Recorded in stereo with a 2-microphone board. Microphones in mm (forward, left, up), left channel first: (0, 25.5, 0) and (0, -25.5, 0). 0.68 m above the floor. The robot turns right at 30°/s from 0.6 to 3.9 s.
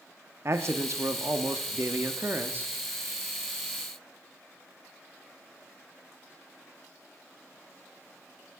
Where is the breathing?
I don't hear breathing.